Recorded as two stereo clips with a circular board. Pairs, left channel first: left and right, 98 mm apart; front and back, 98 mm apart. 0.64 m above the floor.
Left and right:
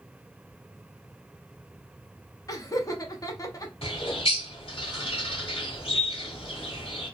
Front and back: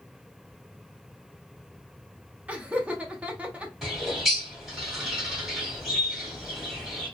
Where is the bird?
90° left, 1.3 m.